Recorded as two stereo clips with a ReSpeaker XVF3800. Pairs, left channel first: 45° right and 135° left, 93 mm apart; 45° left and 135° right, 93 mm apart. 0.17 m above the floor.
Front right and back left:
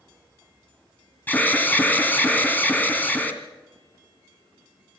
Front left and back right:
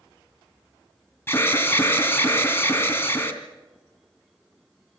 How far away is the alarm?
About 2.5 m.